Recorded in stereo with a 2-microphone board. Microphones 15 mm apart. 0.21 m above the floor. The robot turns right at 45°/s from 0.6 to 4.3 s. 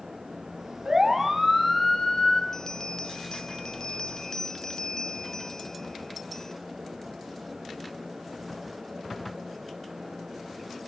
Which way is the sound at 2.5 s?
50° left.